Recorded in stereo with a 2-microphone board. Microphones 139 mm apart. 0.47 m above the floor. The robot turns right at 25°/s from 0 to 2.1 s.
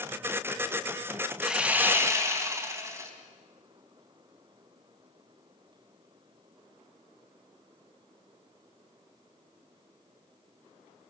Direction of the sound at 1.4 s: 5° right (ahead or behind).